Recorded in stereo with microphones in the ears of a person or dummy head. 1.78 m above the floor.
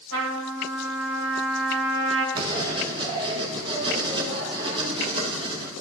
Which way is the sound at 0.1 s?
55° right (ahead or behind).